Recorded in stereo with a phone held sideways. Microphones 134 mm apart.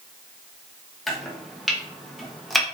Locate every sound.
1.1 s chopping: centre (ahead or behind), 0.9 m